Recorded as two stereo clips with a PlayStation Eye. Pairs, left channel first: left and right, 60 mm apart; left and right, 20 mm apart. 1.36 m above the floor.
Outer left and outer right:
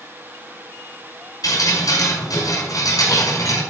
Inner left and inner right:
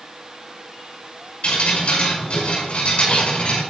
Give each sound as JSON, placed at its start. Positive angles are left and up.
{"t": 1.4, "sound": "dripping", "side_deg": 80, "distance_m": 5.5}